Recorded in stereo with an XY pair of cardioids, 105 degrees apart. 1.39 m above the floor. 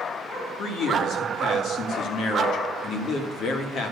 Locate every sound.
0.6 s a man speaking: 70° left, 2.5 m